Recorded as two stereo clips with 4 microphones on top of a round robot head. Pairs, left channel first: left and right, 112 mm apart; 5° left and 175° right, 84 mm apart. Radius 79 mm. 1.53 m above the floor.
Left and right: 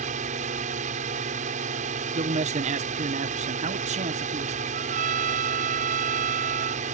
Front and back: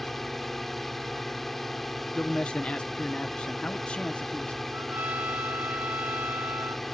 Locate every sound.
0.0 s a drone: 85° right
2.1 s a man speaking: 80° right
4.7 s a trumpet: 100° right